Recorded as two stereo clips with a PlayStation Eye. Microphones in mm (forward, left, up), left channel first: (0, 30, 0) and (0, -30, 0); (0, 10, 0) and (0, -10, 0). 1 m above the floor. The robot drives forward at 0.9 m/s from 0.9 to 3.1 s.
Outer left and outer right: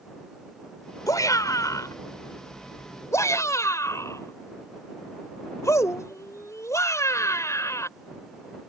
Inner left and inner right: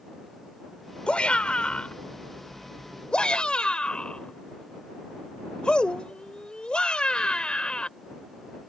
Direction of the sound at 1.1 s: 85° left.